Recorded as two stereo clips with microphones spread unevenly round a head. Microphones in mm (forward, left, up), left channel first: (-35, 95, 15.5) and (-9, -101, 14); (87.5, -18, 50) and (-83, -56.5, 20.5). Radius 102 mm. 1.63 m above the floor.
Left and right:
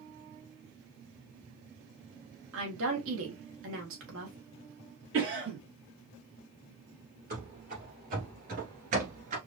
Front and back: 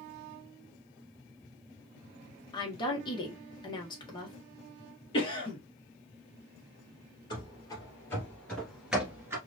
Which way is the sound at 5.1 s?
45° right.